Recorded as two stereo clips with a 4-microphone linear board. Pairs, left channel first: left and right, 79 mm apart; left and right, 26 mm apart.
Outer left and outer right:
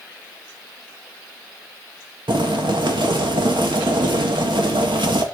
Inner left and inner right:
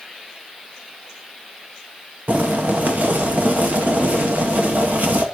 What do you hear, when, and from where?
2.3 s boiling: 80° right, 1.6 m